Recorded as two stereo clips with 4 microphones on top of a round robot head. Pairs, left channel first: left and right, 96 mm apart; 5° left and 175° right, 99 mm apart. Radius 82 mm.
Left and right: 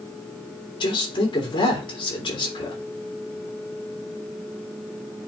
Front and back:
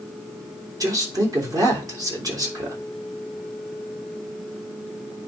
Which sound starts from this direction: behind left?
A man speaking, at 0.8 s.